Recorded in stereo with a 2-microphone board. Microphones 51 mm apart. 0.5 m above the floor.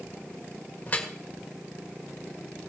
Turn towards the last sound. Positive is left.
turn(degrees=30)  # may be behind; listen again after turning